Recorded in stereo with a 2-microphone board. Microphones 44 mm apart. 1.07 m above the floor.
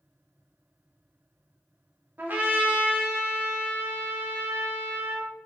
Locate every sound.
2.2 s a trumpet: 45° right (ahead or behind), 0.6 m